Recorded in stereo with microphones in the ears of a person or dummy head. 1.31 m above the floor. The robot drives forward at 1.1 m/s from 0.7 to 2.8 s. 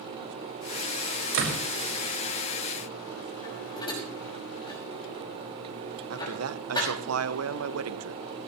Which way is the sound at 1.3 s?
85° right.